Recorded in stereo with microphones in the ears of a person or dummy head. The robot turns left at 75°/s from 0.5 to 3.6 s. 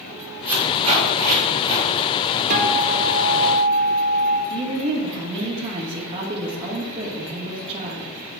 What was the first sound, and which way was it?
Tape being pulled, 10° right (ahead or behind).